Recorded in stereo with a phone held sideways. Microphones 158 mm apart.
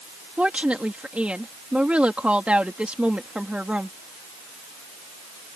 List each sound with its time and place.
0.4 s a woman speaking: 5° right (ahead or behind)